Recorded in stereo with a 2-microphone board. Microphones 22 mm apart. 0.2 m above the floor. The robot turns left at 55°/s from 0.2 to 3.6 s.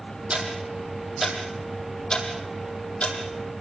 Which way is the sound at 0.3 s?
60° right (ahead or behind).